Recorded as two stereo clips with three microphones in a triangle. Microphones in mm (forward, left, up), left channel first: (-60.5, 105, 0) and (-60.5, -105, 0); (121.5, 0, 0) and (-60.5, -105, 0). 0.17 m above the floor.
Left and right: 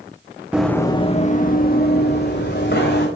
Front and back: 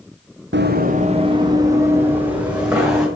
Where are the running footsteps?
175° right, 0.6 m; by 3.1 s 125° left, 2 m.